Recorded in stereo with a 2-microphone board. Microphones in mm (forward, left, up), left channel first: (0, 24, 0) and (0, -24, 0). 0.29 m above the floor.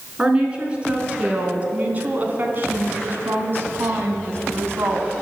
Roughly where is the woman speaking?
Right.